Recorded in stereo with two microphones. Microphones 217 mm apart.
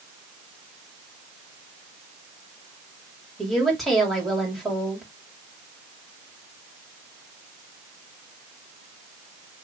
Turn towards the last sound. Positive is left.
turn(degrees=0)  # may be behind; listen again after turning